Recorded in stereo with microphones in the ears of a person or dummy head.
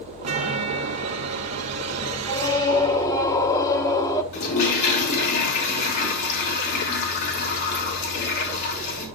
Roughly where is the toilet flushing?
Left.